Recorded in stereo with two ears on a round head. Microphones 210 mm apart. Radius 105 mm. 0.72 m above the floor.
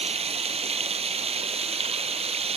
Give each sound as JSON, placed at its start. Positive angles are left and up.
{"t": 0.0, "sound": "running water", "side_deg": -25}